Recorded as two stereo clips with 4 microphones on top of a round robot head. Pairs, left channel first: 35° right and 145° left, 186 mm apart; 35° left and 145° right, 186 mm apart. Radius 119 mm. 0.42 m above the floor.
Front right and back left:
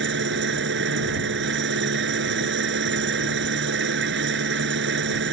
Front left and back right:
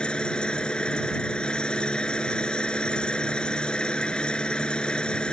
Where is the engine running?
120° left.